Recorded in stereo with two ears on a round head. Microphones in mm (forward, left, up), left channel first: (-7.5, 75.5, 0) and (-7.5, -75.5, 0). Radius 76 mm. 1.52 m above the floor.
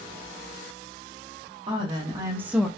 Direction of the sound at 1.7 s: 30° right (ahead or behind).